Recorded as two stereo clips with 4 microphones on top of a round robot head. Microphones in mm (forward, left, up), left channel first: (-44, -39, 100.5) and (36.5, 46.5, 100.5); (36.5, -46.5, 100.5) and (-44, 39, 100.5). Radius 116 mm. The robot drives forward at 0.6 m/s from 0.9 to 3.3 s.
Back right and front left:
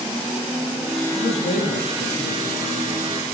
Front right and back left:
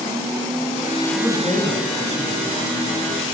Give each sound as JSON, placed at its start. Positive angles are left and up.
{"t": 1.1, "sound": "a man speaking", "azimuth_deg": -105, "distance_m": 7.5}